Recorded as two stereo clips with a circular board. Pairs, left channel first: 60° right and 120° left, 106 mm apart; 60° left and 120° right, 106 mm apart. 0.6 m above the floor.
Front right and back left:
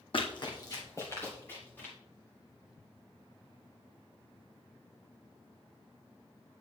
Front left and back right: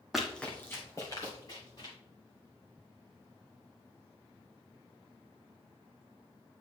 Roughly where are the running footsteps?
Ahead right.